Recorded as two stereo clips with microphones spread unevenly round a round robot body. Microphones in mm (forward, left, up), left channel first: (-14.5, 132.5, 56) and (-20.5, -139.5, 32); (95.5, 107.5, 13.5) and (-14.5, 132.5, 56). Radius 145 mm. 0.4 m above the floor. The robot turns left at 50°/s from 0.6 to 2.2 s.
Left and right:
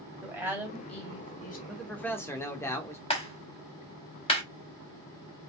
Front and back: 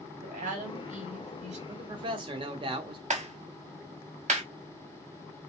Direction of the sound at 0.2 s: 170° right.